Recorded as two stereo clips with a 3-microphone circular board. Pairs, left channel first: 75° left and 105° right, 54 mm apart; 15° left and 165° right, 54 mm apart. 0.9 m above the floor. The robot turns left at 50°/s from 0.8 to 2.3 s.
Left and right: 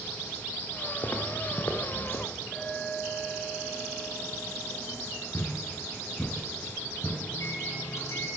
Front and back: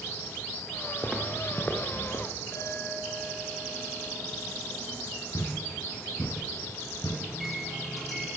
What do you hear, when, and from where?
1.0 s footsteps: 120° left, 4 m; by 2.2 s 50° left, 4.5 m
2.5 s a clink: 15° right, 8.5 m
5.3 s a thud: 25° left, 4 m
7.3 s a microwave: 105° left, 7.5 m